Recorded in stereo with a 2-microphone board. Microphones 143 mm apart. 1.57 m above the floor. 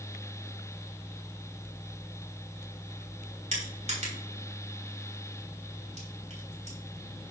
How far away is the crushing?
About 3.5 m.